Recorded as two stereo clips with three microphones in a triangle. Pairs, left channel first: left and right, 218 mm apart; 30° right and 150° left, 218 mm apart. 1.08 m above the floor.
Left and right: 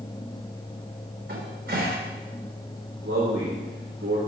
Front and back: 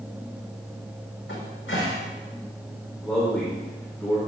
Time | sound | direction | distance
1.3 | a cupboard door | 60° right | 4.5 m
3.0 | a man speaking | 115° right | 3.5 m